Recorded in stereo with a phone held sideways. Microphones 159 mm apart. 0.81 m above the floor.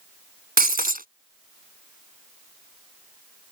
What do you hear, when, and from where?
0.6 s breaking glass: 70° right (ahead or behind)